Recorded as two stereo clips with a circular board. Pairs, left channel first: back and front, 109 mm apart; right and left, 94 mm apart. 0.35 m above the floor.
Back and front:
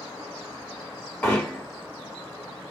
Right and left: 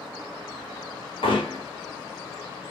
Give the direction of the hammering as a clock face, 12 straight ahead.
3 o'clock.